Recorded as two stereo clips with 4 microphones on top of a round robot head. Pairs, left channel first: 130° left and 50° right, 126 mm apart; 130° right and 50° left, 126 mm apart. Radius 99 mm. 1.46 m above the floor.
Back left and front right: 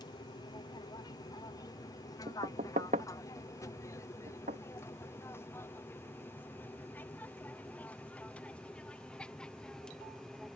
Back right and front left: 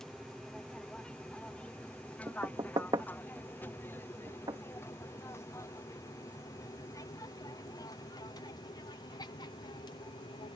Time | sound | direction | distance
0.0 | an aircraft | 145° left | ?
2.3 | knocking | 15° right | ?